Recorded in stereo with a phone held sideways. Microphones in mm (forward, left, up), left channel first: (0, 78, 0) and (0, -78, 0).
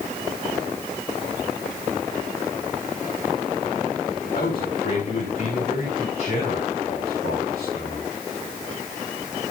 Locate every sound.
4.3 s a man speaking: 70° left (ahead or behind), 3.5 m; by 8.1 s 90° left, 5 m